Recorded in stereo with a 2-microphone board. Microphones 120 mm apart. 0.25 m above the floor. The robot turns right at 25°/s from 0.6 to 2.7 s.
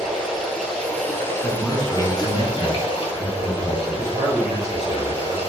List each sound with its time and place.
0.0 s running water: 5° left, 0.8 m; by 5.5 s 55° left, 0.8 m
1.4 s a man speaking: centre (ahead or behind), 1.6 m; by 4.0 s 10° left (ahead or behind), 1.6 m
3.9 s a man speaking: 40° right (ahead or behind), 1.2 m